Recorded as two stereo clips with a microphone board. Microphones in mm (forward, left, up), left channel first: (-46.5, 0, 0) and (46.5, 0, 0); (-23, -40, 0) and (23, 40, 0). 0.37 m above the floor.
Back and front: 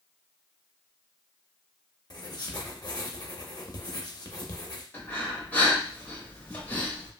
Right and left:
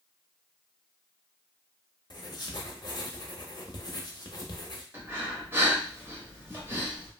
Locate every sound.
2.1 s writing: 150° right, 0.6 m
4.9 s breathing: 115° left, 1.0 m